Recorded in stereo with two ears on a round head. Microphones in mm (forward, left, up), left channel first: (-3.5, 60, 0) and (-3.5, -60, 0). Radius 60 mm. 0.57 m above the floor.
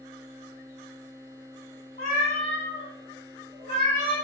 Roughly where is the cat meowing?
Left.